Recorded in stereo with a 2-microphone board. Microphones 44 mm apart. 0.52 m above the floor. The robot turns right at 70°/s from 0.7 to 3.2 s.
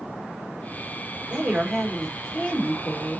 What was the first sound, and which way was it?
A woman speaking, 45° right.